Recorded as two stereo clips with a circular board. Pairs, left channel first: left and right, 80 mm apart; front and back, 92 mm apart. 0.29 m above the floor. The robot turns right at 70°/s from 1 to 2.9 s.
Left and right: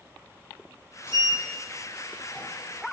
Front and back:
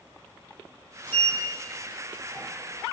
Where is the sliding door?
55° left, 0.6 m; by 2.5 s 150° left, 0.6 m.